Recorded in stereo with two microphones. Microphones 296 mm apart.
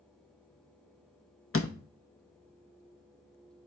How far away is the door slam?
About 0.7 m.